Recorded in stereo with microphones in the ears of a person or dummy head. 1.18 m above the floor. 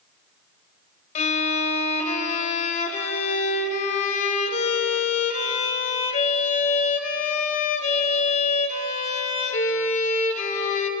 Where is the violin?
40° left (ahead or behind), 1.0 m.